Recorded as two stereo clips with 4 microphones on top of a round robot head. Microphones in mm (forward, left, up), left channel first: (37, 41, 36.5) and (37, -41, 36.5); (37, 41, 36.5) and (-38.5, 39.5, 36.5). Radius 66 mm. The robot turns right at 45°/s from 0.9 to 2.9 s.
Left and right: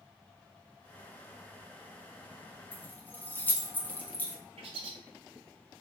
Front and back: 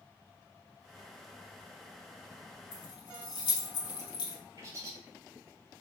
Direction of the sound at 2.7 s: 15° left.